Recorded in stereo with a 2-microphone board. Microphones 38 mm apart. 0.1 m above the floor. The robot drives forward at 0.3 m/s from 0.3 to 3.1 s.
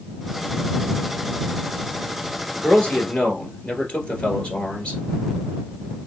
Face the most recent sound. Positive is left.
turn(degrees=25)  # may be behind; listen again after turning